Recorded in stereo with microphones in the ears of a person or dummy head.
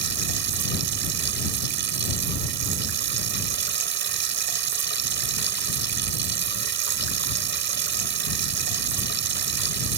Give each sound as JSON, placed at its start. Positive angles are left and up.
{"t": 0.0, "sound": "running water", "side_deg": -55}